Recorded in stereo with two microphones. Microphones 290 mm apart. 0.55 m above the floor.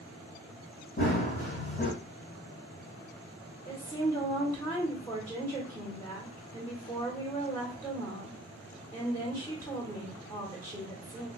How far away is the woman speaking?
About 1.6 m.